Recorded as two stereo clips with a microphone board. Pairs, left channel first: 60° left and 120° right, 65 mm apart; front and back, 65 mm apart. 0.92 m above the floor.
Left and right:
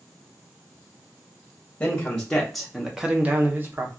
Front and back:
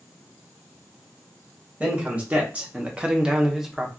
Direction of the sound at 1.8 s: 130° left.